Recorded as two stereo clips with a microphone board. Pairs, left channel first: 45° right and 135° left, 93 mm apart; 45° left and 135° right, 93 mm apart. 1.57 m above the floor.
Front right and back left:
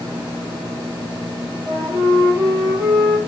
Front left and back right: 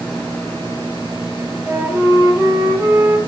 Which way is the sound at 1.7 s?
160° left.